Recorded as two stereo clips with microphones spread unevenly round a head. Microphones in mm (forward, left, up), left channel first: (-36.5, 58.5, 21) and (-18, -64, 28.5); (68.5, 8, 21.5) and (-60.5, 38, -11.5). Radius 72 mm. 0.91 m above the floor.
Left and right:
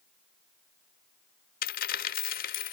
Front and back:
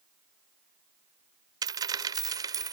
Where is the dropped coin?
100° left.